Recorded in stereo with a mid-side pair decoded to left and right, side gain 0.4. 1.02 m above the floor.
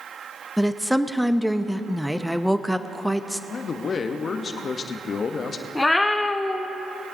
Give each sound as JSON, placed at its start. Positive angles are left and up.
{"t": 0.6, "sound": "a woman speaking", "azimuth_deg": 0, "distance_m": 0.7}
{"t": 3.5, "sound": "a man speaking", "azimuth_deg": 50, "distance_m": 1.1}
{"t": 5.8, "sound": "a cat meowing", "azimuth_deg": 20, "distance_m": 1.2}